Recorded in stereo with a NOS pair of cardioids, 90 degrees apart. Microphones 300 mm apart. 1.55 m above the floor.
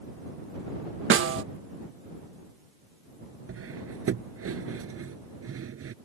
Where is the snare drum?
45° right.